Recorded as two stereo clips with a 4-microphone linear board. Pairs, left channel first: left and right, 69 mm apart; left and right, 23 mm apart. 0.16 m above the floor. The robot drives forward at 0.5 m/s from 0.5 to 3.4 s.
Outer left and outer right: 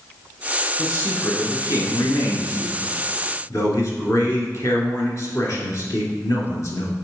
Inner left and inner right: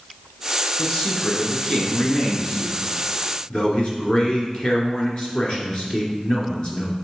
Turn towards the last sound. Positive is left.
turn(degrees=45)  # may be behind; listen again after turning